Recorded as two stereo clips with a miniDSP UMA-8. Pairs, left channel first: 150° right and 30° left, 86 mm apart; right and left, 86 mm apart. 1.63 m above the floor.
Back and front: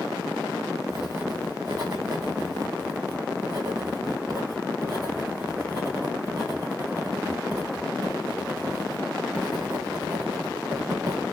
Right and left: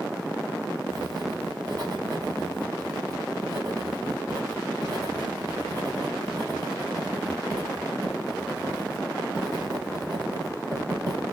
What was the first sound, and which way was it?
Writing, 60° left.